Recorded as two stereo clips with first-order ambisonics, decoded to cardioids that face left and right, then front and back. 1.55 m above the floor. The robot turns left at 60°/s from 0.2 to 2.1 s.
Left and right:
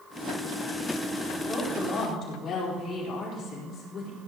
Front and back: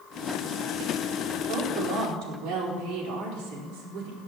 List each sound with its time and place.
1.5 s a woman speaking: 175° right, 4 m; by 4.2 s 145° left, 4 m